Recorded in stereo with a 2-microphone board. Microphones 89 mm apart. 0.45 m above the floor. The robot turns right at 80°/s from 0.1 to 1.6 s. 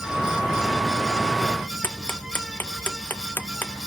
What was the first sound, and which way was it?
Ticking, 20° left (ahead or behind).